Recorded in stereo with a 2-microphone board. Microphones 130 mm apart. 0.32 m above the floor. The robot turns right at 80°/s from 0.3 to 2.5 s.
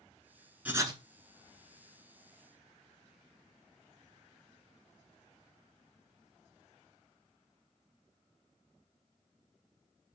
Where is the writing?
10° right (ahead or behind), 0.5 m; by 1.0 s 40° right (ahead or behind), 0.5 m.